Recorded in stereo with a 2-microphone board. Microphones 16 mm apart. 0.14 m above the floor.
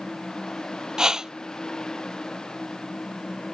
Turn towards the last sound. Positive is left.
turn(degrees=-40)  # may be behind; listen again after turning